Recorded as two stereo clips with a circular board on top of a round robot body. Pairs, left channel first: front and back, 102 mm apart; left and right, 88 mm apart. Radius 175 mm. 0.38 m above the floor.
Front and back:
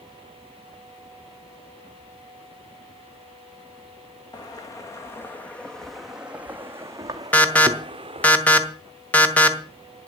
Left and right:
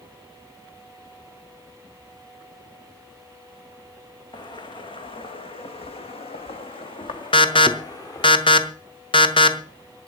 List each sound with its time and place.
4.3 s footsteps: 55° left, 1.8 m; by 8.3 s 140° left, 2 m
7.3 s an alarm: 75° left, 1.9 m